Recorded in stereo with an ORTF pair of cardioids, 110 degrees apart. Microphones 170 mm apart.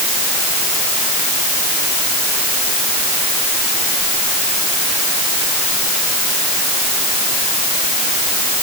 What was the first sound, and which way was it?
Only background noise.